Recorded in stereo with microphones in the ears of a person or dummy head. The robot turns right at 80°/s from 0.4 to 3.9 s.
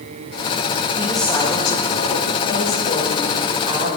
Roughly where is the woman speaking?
Ahead.